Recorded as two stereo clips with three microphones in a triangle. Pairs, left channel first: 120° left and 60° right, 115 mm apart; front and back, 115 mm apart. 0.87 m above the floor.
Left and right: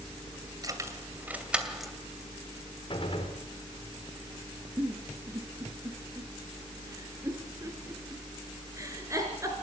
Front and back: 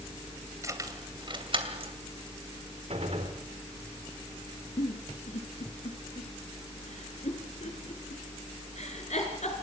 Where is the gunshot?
160° left, 3.5 m.